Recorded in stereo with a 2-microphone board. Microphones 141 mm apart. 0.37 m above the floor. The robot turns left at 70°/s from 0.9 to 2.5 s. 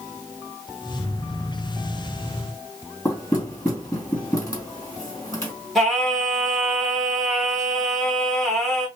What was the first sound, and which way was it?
Knocking, 25° left (ahead or behind).